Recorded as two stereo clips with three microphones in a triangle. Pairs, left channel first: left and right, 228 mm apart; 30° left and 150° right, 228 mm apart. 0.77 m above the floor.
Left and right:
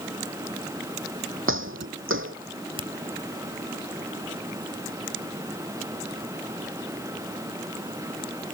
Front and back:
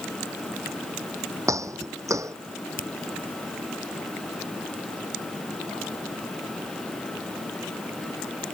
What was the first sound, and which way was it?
Footsteps, 75° right.